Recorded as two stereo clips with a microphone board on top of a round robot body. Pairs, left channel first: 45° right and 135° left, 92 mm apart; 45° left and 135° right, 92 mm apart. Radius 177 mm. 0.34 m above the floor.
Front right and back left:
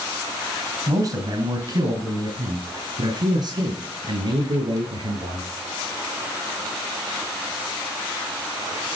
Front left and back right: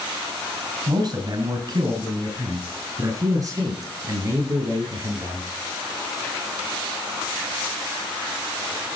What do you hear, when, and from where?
0.9 s a man speaking: straight behind, 5 m; by 5.5 s 170° left, 9.5 m